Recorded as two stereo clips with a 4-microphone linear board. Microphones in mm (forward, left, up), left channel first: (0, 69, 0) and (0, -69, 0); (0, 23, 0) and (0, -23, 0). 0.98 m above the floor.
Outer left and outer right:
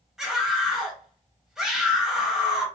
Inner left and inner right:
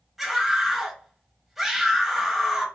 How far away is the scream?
About 1.3 m.